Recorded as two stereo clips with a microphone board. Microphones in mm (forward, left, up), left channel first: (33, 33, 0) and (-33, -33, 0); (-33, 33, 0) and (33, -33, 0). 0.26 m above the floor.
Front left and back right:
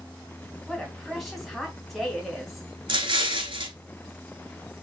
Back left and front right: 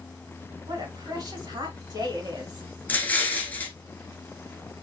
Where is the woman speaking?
40° right, 2 m.